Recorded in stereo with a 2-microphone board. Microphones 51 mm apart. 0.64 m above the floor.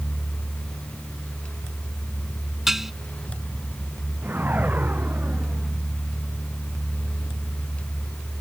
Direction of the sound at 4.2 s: 35° right (ahead or behind).